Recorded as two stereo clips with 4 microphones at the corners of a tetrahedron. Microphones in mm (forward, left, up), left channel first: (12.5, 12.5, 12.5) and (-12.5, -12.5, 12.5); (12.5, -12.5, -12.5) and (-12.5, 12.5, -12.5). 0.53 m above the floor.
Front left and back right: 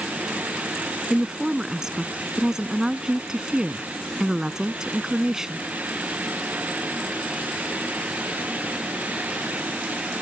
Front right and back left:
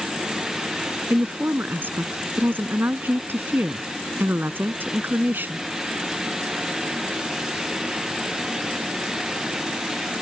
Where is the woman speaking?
150° left.